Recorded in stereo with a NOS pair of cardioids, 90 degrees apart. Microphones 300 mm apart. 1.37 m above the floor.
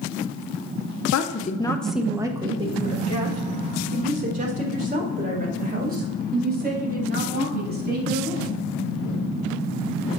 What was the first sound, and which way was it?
A woman speaking, 60° left.